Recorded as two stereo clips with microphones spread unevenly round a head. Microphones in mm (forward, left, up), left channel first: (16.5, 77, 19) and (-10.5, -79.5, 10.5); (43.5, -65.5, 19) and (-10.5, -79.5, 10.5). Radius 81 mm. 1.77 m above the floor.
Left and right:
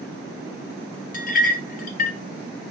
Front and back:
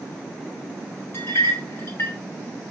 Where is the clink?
60° left, 1.2 m.